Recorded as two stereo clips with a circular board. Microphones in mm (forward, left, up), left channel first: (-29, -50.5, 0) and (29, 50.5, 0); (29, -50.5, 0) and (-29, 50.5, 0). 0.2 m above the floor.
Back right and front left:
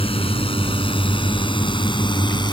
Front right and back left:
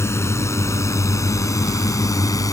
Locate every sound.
0.0 s a drone: 120° right; by 2.5 s 100° right